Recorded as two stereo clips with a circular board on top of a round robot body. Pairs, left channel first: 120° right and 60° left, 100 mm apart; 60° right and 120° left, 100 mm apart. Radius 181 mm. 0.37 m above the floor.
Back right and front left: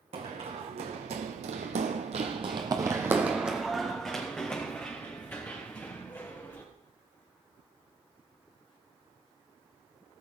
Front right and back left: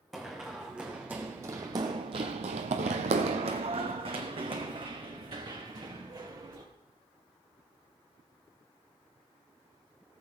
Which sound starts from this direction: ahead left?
Running footsteps, at 0.1 s.